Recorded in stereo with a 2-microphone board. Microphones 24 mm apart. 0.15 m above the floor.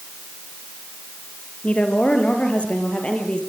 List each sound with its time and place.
1.6 s a woman speaking: 65° left (ahead or behind), 3.5 m; by 3.4 s 50° left (ahead or behind), 4.5 m